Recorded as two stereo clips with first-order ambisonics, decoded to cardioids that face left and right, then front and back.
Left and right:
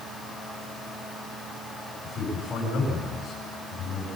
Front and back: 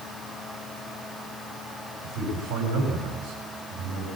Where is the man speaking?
160° left, 9 m.